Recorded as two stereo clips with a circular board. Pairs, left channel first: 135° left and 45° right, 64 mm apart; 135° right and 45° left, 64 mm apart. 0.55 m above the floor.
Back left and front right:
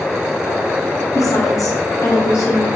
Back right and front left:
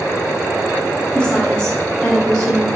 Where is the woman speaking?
150° left, 3 m; by 2.7 s 160° left, 1.9 m.